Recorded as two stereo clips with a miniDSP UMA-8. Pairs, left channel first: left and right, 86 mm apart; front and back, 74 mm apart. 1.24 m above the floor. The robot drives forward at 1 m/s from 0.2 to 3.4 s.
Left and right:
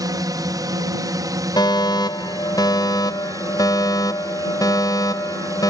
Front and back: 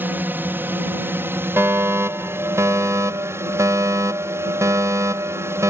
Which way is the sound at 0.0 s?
125° right.